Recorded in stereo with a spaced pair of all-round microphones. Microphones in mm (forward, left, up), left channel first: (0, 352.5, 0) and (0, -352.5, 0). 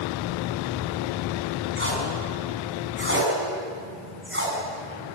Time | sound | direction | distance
1.8 | tape being pulled | 15° right (ahead or behind) | 6 m